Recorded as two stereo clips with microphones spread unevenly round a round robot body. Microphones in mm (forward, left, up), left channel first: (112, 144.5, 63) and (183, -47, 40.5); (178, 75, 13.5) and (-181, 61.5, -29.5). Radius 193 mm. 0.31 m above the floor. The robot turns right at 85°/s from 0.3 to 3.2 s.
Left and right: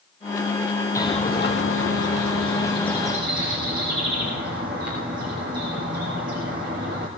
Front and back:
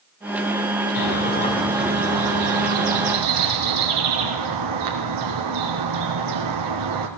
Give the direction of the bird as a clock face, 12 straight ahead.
11 o'clock.